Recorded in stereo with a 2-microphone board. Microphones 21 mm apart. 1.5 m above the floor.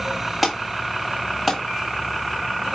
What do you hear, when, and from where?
0.4 s an alarm: 5° left (ahead or behind), 3 m